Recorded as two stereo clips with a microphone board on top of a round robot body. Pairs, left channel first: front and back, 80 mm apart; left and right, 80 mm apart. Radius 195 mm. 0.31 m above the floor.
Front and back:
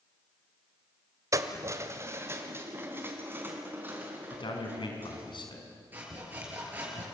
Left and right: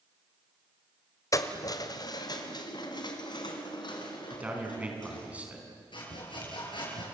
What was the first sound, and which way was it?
Keys jangling, 135° left.